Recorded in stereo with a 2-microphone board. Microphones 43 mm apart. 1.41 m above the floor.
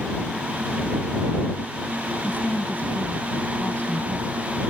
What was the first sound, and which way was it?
A woman speaking, 35° left (ahead or behind).